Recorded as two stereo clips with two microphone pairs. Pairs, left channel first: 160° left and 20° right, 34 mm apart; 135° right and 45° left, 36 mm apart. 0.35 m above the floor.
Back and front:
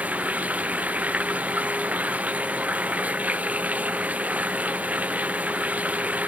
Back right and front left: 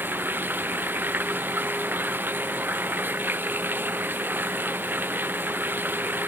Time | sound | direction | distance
0.0 | running water | 25° left | ?